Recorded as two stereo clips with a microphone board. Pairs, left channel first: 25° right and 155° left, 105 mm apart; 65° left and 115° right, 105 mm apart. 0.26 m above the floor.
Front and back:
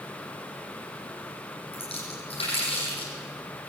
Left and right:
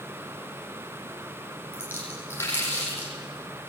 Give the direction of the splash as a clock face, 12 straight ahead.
12 o'clock.